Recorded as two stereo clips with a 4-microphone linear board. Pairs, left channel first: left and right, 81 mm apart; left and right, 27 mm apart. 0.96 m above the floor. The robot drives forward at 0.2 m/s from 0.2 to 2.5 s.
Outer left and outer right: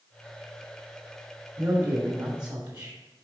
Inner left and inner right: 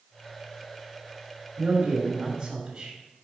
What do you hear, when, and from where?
1.6 s a man speaking: 50° right (ahead or behind), 2.5 m; by 3.0 s 55° right (ahead or behind), 2.5 m